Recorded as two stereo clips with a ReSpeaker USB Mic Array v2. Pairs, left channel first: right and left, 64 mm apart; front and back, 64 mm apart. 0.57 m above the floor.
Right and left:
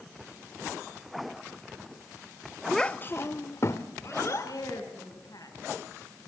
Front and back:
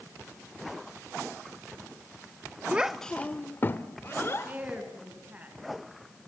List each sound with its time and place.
2.7 s a child speaking: 170° right, 0.6 m; by 4.5 s 50° right, 2.5 m
4.4 s a woman speaking: 115° right, 5.5 m